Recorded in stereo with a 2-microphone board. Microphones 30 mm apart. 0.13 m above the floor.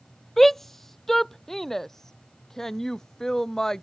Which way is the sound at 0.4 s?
5° left (ahead or behind).